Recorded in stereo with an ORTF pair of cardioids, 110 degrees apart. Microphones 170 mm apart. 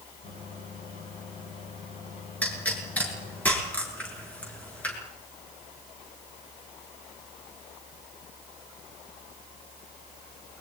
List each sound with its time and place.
0.2 s a microwave: 50° left, 9.5 m
2.4 s a pop: 10° left, 7.5 m